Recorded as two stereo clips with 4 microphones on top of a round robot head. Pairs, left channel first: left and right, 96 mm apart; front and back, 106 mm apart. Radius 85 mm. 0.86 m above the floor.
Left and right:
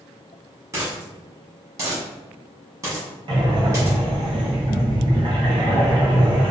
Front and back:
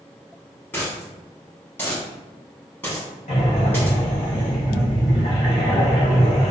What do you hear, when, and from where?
0.7 s a dropped coin: 70° right, 0.8 m
3.3 s breathing: 50° right, 0.7 m